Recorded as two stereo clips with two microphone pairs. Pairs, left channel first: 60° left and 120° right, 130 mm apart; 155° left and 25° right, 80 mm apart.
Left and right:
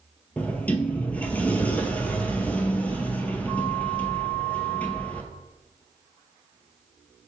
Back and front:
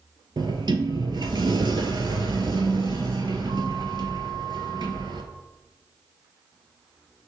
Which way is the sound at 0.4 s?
20° right.